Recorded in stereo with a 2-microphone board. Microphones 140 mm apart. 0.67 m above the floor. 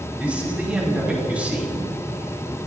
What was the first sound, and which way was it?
A man speaking, 10° right (ahead or behind).